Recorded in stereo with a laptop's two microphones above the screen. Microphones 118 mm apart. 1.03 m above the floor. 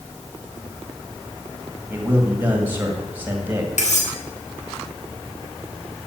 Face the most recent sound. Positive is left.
turn(degrees=75)  # may be behind; listen again after turning